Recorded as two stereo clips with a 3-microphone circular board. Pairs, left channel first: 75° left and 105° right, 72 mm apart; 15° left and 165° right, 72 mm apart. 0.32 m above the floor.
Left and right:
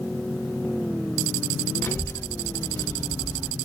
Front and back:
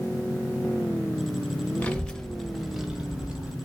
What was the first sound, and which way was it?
A child speaking, 65° left.